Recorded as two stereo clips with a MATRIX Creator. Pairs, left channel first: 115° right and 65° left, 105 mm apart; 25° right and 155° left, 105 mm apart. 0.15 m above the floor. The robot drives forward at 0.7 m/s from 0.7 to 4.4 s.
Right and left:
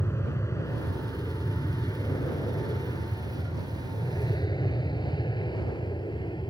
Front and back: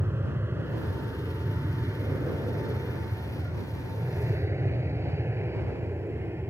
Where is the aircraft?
155° right; by 6.5 s 140° right.